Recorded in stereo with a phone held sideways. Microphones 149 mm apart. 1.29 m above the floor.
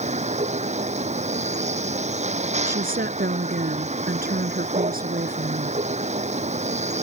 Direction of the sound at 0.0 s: 50° right (ahead or behind).